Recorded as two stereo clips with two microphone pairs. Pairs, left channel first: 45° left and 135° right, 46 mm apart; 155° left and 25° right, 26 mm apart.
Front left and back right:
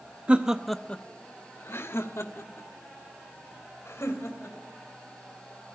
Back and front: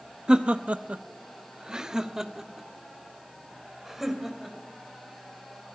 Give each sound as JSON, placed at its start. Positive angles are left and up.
{"t": 0.3, "sound": "laughter", "azimuth_deg": -80, "distance_m": 0.7}